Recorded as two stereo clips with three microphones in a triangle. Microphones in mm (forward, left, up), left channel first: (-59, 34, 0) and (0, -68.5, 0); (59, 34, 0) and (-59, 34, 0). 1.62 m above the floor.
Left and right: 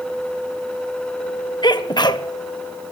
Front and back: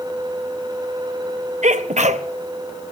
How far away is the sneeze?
About 1.4 m.